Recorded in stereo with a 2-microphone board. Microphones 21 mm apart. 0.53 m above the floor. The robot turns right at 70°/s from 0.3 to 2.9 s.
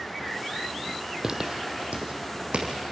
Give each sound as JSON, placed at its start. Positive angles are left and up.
{"t": 1.2, "sound": "footsteps", "side_deg": -20, "distance_m": 1.1}